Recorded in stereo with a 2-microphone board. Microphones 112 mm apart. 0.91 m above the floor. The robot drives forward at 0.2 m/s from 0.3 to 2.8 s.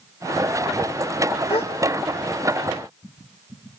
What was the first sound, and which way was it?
A gasp, 60° left (ahead or behind).